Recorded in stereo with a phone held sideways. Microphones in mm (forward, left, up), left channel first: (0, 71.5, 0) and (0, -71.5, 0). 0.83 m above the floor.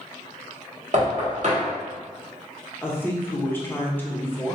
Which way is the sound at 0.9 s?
60° right (ahead or behind).